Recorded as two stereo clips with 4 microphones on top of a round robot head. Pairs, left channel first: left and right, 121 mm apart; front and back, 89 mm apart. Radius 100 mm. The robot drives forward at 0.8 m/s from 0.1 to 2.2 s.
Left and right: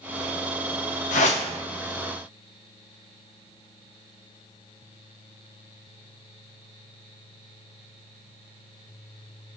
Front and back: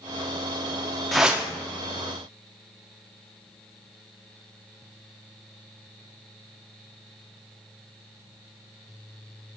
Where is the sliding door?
No sliding door in this recording.